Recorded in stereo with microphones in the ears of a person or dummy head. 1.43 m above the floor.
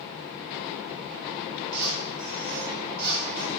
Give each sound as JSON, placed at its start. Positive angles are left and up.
{"t": 1.7, "sound": "a squeak", "side_deg": -50, "distance_m": 1.0}